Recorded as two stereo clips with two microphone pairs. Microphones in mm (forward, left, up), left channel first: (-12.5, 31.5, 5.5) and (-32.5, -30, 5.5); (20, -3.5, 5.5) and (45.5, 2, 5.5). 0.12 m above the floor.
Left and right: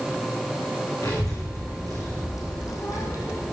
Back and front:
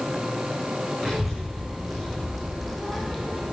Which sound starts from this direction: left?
A child speaking, at 1.0 s.